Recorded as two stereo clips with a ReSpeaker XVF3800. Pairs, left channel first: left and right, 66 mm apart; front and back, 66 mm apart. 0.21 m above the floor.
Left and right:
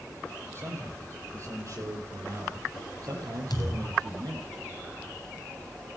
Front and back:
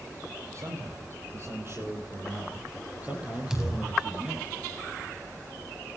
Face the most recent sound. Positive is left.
turn(degrees=100)